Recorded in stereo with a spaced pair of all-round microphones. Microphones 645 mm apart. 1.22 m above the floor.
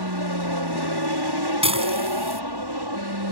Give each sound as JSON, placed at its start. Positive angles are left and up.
{"t": 0.0, "sound": "an aircraft", "side_deg": -35}
{"t": 1.6, "sound": "dishes clattering", "side_deg": -10}